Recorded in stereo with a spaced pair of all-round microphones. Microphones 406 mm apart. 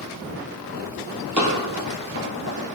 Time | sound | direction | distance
1.4 | running footsteps | 45° right (ahead or behind) | 1.9 m